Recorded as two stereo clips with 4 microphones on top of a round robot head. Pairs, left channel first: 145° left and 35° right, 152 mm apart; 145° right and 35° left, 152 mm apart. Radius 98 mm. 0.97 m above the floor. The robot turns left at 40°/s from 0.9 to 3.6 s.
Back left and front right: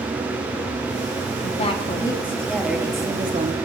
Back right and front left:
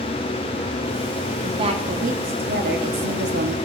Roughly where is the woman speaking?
Left.